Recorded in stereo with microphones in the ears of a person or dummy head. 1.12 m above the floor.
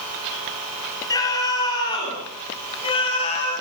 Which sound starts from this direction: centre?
A scream, at 1.1 s.